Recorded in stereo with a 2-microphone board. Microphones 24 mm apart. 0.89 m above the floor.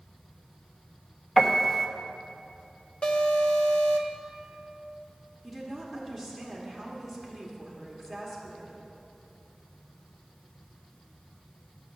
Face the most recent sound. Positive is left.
turn(degrees=10)  # may be behind; listen again after turning